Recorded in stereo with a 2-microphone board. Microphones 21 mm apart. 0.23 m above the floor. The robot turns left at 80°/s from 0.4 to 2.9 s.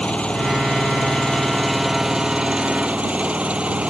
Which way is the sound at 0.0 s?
115° left.